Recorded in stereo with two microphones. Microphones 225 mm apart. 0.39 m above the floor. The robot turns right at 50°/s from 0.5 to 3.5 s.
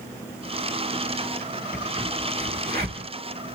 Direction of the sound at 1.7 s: Centre (ahead or behind).